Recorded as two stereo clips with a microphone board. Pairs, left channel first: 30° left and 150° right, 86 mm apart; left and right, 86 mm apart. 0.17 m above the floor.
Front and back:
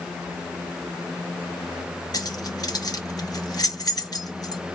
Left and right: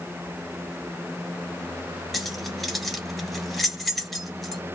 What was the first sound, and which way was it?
Keys jangling, straight ahead.